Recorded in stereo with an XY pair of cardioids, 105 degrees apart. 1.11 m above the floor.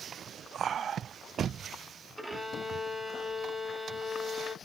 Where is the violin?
Straight ahead, 0.7 m.